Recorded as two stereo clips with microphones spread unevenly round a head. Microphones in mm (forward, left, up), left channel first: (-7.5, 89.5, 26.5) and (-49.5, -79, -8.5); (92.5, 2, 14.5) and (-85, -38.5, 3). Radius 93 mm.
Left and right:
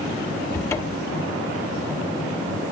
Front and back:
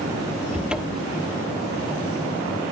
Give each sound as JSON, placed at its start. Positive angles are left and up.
{"t": 0.5, "sound": "a cupboard door", "azimuth_deg": 105, "distance_m": 1.2}